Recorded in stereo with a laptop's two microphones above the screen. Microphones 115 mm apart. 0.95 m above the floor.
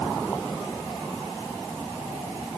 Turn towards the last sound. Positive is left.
No sound to turn to.